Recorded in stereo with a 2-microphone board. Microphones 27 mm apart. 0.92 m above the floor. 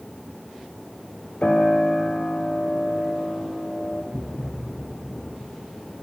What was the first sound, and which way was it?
A piano, 45° left (ahead or behind).